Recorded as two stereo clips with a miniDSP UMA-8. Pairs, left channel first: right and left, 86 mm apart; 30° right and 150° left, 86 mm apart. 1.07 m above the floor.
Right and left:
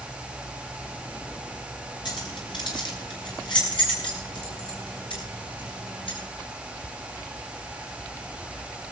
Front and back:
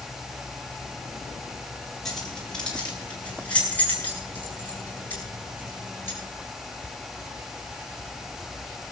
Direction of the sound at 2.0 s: 115° right.